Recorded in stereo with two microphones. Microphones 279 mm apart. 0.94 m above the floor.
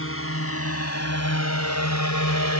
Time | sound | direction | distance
0.0 | a drone | 50° left (ahead or behind) | ?